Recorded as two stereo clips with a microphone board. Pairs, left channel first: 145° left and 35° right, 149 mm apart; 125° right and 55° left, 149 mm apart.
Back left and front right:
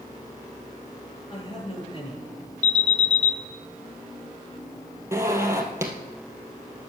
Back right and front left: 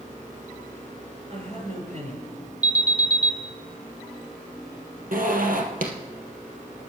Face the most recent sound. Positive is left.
turn(degrees=35)